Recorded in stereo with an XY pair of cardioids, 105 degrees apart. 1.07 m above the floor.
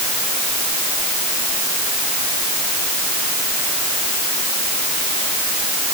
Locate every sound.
Only background noise.